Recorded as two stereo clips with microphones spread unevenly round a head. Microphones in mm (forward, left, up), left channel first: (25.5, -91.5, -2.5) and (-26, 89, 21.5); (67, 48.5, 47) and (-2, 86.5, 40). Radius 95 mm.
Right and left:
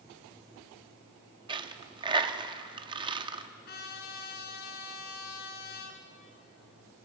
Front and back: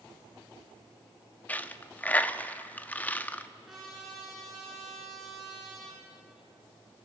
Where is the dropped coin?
40° left, 0.7 m.